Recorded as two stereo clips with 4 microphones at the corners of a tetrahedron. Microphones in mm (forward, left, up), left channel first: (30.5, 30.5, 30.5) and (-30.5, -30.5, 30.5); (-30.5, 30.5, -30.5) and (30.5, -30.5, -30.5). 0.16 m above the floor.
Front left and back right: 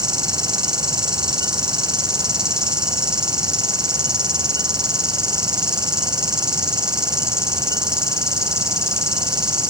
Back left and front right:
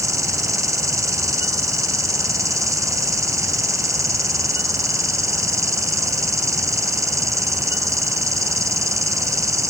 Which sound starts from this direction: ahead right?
An insect, at 0.0 s.